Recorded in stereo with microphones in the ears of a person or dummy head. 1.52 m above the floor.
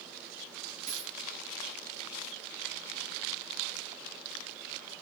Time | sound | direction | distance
0.9 | a dropped coin | 45° right (ahead or behind) | 6 m